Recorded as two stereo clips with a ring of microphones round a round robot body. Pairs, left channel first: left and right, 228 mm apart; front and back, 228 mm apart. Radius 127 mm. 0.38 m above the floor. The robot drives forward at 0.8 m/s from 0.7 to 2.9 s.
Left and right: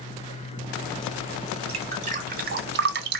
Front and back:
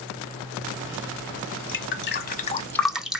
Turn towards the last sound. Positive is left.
turn(degrees=-95)